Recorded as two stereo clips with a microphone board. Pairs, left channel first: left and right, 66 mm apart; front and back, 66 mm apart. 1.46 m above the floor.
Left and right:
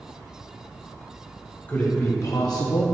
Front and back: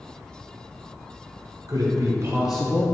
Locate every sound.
1.7 s a man speaking: 155° left, 1.2 m; by 2.9 s 55° left, 0.6 m